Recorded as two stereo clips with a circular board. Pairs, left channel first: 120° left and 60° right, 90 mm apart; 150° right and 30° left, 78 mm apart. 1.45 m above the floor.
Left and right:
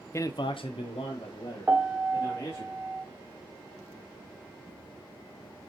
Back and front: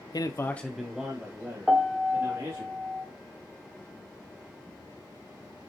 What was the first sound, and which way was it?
A man speaking, straight behind.